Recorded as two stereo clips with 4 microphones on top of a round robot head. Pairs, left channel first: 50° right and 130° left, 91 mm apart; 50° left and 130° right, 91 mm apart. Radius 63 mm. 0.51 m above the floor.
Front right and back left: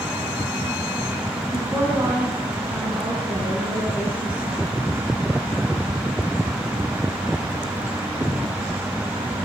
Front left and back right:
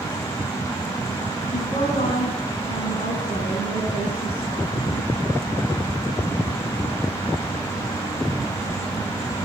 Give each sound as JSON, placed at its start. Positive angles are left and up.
{"t": 1.5, "sound": "a woman speaking", "azimuth_deg": 65, "distance_m": 7.0}